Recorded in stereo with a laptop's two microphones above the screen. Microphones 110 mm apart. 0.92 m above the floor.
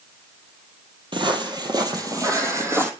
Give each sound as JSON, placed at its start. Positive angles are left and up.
{"t": 1.1, "sound": "footsteps", "side_deg": -50, "distance_m": 1.8}